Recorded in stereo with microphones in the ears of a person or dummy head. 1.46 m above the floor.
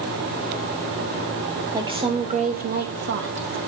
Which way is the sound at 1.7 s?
20° right (ahead or behind).